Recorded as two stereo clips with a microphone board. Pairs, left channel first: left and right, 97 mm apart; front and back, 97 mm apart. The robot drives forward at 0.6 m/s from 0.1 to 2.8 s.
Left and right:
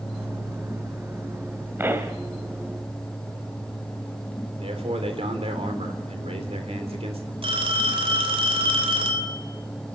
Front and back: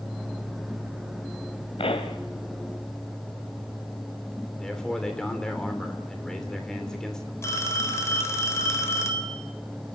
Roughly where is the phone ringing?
Ahead right.